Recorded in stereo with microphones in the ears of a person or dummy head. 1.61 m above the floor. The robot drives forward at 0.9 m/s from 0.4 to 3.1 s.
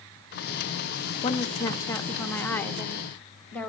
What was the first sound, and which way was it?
A woman speaking, 20° left (ahead or behind).